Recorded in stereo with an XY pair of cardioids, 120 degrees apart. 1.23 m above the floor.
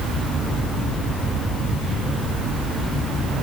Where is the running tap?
I don't hear a running tap.